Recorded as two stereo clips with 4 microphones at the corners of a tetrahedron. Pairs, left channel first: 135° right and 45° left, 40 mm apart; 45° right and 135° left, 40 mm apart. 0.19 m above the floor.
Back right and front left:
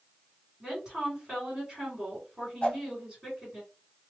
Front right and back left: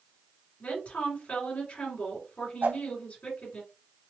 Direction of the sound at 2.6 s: 160° left.